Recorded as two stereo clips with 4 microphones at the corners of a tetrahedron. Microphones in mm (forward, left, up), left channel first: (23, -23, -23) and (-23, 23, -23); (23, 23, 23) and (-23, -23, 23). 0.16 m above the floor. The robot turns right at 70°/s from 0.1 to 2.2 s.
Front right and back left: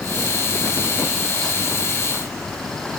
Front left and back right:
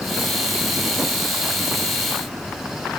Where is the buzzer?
I don't hear a buzzer.